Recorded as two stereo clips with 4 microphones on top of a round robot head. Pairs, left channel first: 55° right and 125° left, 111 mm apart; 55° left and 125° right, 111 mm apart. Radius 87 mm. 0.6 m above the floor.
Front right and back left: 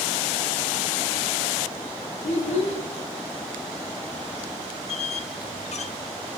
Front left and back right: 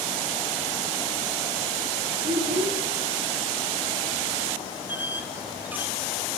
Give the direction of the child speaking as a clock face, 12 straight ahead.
3 o'clock.